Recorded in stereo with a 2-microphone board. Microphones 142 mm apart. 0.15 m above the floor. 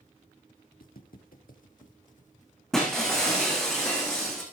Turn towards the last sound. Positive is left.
turn(degrees=5)  # may be behind; listen again after turning